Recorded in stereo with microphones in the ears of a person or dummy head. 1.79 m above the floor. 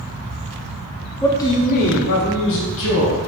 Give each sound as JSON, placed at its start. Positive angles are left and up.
{"t": 1.2, "sound": "a man speaking", "side_deg": 10, "distance_m": 0.5}